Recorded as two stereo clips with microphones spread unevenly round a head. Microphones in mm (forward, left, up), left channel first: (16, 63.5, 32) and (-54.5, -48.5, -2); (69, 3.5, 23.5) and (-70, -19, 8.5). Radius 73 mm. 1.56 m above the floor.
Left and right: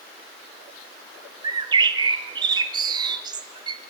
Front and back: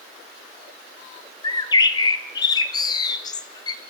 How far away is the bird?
About 1.1 m.